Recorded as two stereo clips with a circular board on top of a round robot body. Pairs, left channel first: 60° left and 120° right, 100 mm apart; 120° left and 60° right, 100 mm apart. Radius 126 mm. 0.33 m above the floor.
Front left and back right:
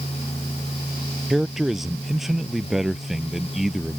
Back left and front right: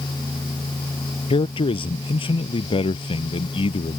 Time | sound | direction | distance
1.3 | a man speaking | 155° left | ?